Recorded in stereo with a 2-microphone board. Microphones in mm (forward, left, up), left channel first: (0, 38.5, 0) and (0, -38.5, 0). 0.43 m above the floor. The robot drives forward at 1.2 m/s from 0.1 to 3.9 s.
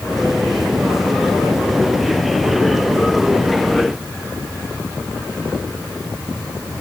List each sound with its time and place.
Only background noise.